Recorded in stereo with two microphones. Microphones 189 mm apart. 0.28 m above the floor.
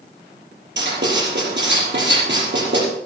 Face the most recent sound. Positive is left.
turn(degrees=-80)